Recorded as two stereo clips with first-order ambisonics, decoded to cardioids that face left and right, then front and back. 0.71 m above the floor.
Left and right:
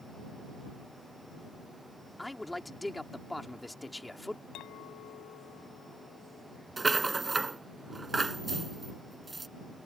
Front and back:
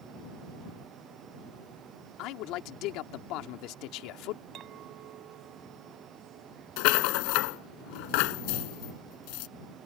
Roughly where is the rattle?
Ahead.